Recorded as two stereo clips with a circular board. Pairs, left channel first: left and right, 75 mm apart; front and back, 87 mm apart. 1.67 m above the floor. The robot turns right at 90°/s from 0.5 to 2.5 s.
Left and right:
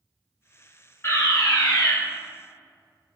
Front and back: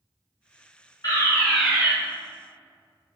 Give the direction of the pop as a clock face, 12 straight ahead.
No pop in this recording.